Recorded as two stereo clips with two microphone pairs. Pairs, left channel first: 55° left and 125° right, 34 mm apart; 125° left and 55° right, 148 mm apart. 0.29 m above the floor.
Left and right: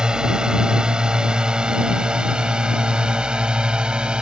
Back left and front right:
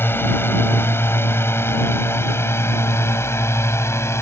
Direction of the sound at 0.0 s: 170° right.